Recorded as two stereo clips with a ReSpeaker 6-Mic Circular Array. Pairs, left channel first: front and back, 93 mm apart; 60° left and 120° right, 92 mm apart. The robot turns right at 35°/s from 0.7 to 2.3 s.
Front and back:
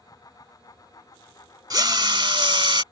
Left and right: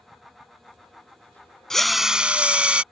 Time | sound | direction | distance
1.7 | a drill | 145° left | ?